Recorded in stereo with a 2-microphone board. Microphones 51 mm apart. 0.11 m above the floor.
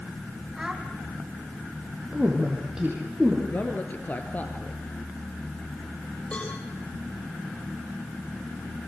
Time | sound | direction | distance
0.6 | a child speaking | 10° right (ahead or behind) | 3.5 m
2.1 | a woman speaking | 10° right (ahead or behind) | 4.5 m
3.5 | a man speaking | 30° left (ahead or behind) | 1.6 m
6.3 | a cowbell | 25° left (ahead or behind) | 8 m